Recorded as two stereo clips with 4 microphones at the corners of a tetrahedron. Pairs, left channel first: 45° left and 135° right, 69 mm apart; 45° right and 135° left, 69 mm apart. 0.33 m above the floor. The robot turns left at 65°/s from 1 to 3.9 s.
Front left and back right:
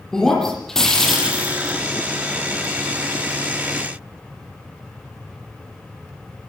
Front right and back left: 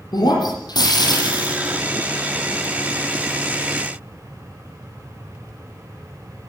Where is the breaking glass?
35° right, 8.5 m; by 1.8 s 90° right, 8.5 m.